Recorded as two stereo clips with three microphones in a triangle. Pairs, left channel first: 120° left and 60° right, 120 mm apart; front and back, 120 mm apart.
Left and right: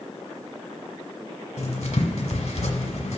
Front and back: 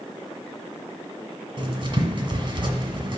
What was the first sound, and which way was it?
Writing, 130° left.